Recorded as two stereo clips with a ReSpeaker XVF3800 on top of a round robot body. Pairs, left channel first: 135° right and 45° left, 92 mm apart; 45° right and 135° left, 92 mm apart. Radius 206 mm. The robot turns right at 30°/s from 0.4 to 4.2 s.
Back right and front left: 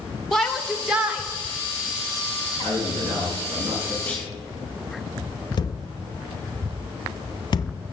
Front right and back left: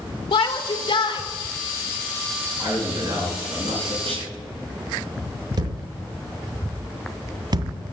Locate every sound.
0.3 s a shout: 50° right, 2.5 m; by 1.2 s 25° right, 2.5 m
2.6 s a man speaking: 65° left, 6.5 m; by 4.0 s 105° left, 6.5 m
4.1 s a clunk: 150° left, 3 m; by 4.3 s 155° left, 3 m
5.6 s a thud: straight behind, 0.6 m